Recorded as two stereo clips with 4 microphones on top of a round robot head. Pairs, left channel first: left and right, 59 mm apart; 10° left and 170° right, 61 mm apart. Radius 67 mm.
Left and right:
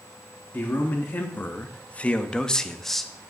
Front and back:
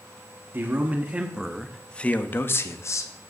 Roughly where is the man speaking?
Behind left.